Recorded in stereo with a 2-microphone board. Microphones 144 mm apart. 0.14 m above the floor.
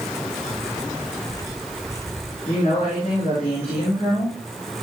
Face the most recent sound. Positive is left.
turn(degrees=40)  # may be behind; listen again after turning